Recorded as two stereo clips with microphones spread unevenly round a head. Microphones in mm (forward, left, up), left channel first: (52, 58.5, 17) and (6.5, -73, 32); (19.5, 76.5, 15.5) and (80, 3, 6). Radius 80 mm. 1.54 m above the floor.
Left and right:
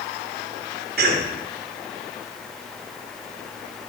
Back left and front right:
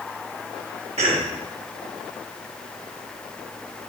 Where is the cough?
95° right, 2 m.